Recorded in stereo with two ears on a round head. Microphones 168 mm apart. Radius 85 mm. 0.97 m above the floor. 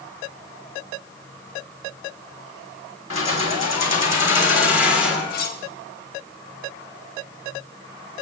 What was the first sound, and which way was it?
Keys jangling, 85° left.